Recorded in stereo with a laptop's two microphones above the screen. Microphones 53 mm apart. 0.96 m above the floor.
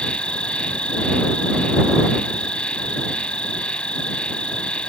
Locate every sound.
0.0 s an insect: 20° left (ahead or behind)